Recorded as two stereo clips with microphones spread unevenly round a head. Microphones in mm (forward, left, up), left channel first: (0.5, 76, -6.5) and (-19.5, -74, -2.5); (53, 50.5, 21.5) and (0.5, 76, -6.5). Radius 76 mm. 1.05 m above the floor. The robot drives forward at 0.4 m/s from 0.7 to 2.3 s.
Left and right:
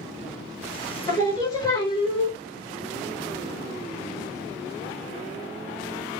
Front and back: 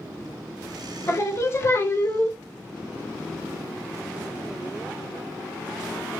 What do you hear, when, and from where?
1.1 s singing: 10° left, 1.2 m; by 2.4 s 20° left, 0.8 m